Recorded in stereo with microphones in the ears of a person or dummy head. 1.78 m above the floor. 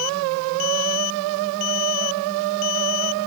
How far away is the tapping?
I don't hear tapping.